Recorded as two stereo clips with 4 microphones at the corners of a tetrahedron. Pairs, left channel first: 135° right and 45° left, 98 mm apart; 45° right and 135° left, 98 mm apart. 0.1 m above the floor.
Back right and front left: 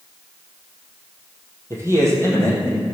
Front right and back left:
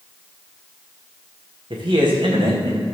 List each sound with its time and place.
1.7 s a man speaking: 105° left, 3.5 m